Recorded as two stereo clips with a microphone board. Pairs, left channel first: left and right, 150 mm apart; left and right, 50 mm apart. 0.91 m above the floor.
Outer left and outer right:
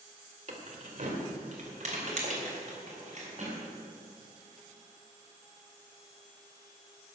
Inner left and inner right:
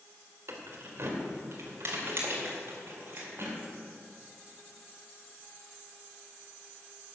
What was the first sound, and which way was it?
Keys jangling, 55° right (ahead or behind).